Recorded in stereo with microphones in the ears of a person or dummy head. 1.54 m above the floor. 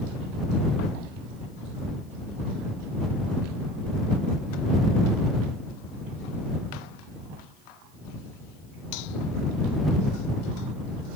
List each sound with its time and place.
Only background noise.